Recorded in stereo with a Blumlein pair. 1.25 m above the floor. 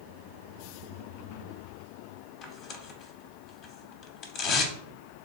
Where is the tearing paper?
30° left, 0.6 m.